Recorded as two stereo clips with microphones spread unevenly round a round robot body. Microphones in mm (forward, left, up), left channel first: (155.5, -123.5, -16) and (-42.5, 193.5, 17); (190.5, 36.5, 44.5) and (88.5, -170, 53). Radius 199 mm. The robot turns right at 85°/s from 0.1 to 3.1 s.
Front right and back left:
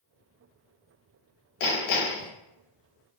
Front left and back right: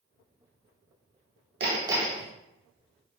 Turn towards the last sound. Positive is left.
turn(degrees=65)